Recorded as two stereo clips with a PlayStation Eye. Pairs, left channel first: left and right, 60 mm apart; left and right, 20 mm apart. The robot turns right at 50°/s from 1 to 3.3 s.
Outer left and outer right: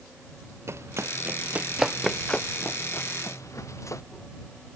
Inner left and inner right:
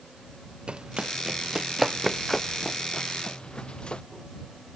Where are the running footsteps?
50° right (ahead or behind); by 4.0 s 60° left (ahead or behind).